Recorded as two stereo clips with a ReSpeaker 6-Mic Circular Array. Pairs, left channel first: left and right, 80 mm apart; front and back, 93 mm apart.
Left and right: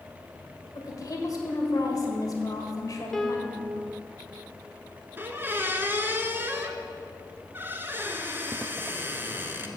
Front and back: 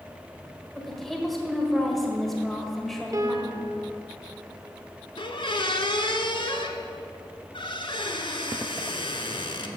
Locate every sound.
0.8 s a woman speaking: 85° left, 1.6 m
3.1 s a piano: 175° left, 0.7 m
5.2 s a squeak: 25° right, 0.8 m